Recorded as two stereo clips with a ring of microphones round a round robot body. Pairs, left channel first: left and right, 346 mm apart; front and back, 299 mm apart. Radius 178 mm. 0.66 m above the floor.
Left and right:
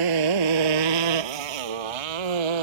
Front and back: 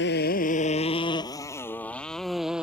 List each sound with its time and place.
0.0 s a motorcycle: 60° right; by 2.6 s 90° right